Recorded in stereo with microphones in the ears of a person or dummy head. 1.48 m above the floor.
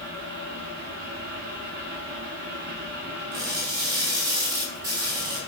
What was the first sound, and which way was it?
A fan, 55° right (ahead or behind).